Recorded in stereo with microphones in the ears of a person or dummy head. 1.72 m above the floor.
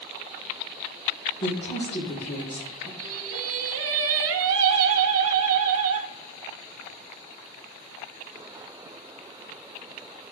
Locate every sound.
1.4 s a woman speaking: 35° left (ahead or behind), 4.5 m
3.0 s singing: 80° right, 1.0 m